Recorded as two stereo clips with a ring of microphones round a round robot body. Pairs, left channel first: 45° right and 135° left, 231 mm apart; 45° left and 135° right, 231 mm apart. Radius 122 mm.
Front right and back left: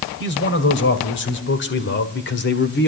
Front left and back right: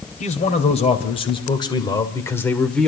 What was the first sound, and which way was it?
A man speaking, 10° right.